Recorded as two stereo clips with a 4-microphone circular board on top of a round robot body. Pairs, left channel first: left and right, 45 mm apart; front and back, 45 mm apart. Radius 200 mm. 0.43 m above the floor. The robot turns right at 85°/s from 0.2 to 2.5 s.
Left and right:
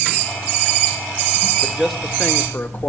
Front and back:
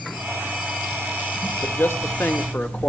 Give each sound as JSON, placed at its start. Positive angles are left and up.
{"t": 1.6, "sound": "a man speaking", "azimuth_deg": -30, "distance_m": 2.0}